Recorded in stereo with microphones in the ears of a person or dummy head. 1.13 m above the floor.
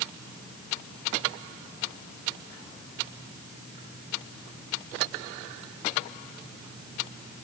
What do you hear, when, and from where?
Only background noise.